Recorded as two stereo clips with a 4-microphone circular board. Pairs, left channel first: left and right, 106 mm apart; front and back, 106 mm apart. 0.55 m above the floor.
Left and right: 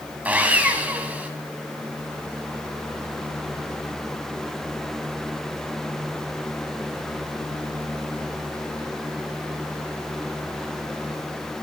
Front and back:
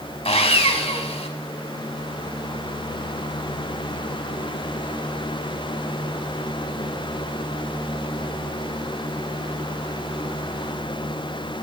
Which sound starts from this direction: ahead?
Sawing, at 0.2 s.